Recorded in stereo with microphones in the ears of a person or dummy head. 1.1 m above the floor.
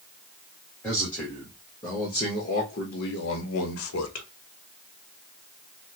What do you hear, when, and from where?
0.8 s a man speaking: 5° left (ahead or behind), 1.6 m; by 4.3 s 75° left (ahead or behind), 1.1 m